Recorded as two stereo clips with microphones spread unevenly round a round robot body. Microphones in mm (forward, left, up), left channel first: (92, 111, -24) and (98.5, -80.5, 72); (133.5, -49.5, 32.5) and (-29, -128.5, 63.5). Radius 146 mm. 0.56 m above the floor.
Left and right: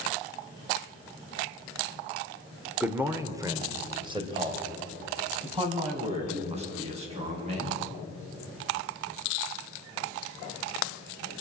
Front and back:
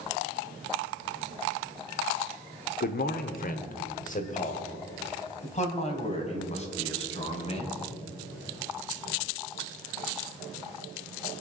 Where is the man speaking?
10° left, 1.3 m; by 7.8 s 30° right, 5 m.